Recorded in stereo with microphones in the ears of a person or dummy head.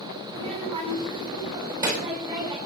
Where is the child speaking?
30° right (ahead or behind), 4 m; by 2.6 s 20° right (ahead or behind), 5.5 m.